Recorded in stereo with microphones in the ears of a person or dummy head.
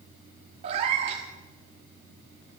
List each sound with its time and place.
0.6 s a cat meowing: 30° right (ahead or behind), 1.3 m